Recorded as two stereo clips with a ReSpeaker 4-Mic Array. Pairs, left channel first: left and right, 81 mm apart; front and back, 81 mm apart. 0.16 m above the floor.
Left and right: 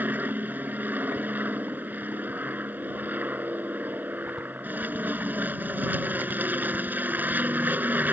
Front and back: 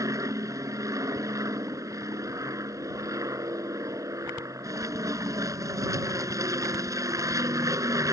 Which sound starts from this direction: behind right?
An aircraft, at 0.0 s.